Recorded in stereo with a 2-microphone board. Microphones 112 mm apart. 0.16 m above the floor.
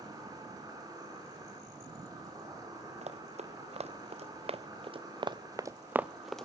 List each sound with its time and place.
0.0 s an insect: 35° right (ahead or behind), 4.5 m
3.0 s running footsteps: 75° right (ahead or behind), 1.9 m; by 6.5 s 5° left (ahead or behind), 0.7 m